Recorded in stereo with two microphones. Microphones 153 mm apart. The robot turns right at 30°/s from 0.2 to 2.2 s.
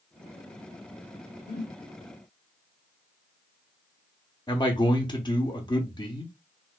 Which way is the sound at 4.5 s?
30° left (ahead or behind).